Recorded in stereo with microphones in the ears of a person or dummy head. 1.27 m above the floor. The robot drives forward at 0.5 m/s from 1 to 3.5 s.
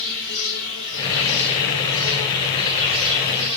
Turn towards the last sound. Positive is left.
turn(degrees=55)  # may be behind; listen again after turning